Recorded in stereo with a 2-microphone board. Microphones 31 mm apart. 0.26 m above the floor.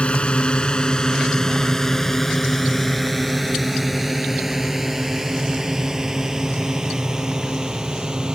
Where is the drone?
35° left (ahead or behind); by 8.3 s 25° right (ahead or behind).